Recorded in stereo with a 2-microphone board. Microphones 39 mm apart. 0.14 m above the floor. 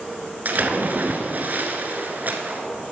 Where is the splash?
50° right (ahead or behind), 1.3 m.